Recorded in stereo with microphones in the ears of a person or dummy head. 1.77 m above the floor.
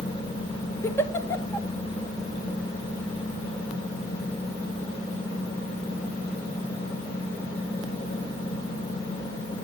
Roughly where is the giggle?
Centre.